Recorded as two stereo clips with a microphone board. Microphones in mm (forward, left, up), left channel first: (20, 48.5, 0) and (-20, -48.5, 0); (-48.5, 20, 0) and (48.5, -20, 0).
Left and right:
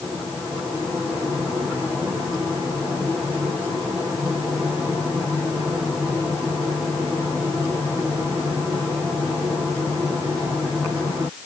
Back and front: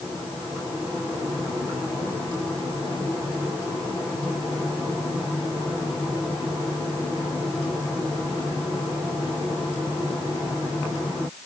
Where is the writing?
No writing in this recording.